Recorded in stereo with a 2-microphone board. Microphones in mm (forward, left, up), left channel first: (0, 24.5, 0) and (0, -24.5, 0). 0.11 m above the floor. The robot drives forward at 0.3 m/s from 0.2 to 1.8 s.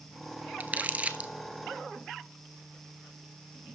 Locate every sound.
0.6 s crumpling: 35° right (ahead or behind), 0.7 m; by 1.3 s 30° right (ahead or behind), 0.8 m